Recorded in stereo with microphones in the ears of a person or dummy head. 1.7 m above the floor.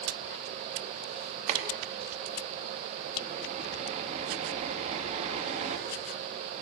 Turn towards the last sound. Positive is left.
turn(degrees=-35)  # may be behind; listen again after turning